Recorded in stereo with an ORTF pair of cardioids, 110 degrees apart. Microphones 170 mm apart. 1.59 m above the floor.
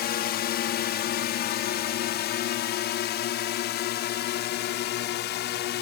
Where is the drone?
70° left; by 5.8 s 80° left.